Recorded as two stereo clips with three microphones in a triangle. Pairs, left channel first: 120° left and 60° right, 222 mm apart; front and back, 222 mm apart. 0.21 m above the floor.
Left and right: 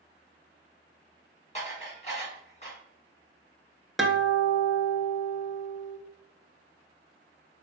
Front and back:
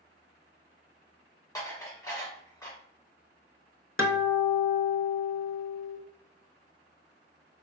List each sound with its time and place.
1.6 s dishes clattering: 70° left, 1.4 m
4.0 s a guitar: 30° left, 0.6 m